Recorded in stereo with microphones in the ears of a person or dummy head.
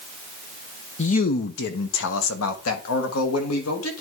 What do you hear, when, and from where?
1.0 s a man speaking: 35° left (ahead or behind), 0.5 m; by 4.0 s 85° left, 1.8 m